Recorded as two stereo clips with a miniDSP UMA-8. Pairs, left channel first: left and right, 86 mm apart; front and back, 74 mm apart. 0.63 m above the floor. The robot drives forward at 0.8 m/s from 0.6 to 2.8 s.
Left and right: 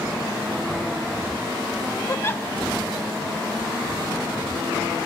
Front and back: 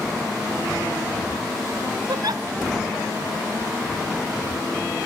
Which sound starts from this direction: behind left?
A giggle, at 2.1 s.